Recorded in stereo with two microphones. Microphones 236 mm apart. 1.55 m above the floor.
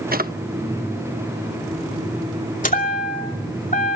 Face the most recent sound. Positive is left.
turn(degrees=35)  # may be behind; listen again after turning